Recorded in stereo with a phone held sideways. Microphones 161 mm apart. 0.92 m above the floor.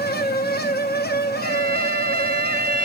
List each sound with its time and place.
0.0 s a fan: 80° left, 0.9 m
1.4 s a violin: 65° right (ahead or behind), 1.2 m